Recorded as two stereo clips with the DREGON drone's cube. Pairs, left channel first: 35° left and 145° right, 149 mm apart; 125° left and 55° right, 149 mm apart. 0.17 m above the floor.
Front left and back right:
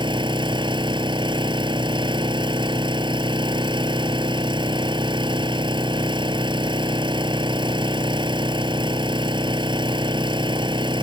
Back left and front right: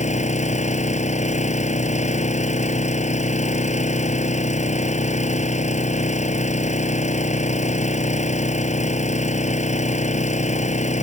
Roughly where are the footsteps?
No footsteps in this recording.